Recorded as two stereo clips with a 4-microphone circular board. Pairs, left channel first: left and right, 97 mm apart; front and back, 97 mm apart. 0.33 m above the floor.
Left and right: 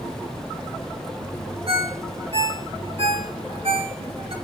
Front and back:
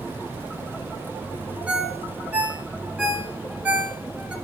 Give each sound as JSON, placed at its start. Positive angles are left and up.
{"t": 1.7, "sound": "a ringtone", "azimuth_deg": -100, "distance_m": 1.6}